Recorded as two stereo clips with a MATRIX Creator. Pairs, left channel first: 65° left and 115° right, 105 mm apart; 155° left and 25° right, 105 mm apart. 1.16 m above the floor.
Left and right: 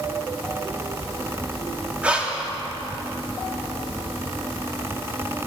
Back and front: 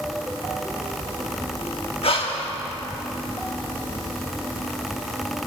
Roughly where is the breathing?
Behind.